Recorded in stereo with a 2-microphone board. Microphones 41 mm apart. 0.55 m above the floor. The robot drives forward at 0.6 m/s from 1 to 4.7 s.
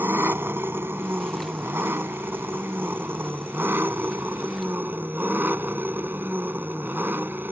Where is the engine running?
80° right; by 7.5 s 60° right (ahead or behind).